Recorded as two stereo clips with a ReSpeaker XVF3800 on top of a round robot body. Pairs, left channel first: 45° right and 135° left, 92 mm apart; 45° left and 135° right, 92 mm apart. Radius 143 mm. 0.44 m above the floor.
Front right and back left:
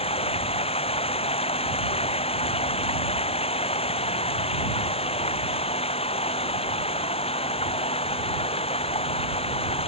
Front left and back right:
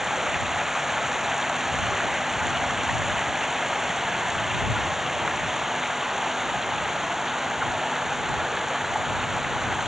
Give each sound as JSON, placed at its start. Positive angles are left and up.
{"t": 0.0, "sound": "running water", "azimuth_deg": -50}